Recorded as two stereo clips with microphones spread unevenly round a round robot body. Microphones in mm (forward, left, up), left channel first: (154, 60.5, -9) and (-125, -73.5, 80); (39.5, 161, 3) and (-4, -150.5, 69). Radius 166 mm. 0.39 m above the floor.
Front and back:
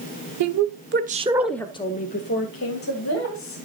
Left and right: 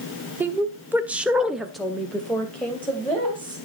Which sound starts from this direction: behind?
A woman speaking, at 0.4 s.